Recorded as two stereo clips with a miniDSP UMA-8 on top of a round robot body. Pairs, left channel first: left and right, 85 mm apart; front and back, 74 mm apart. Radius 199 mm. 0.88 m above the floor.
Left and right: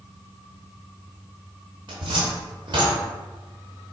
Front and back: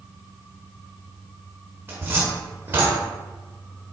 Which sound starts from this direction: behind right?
A cupboard door, at 1.9 s.